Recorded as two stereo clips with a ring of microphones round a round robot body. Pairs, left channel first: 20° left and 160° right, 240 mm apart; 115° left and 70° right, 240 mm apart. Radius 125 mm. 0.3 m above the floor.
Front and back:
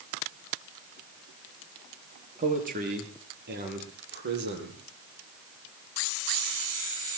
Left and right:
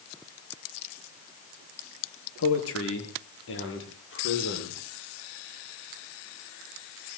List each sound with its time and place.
2.4 s a man speaking: 145° left, 5.5 m; by 4.8 s 155° left, 9 m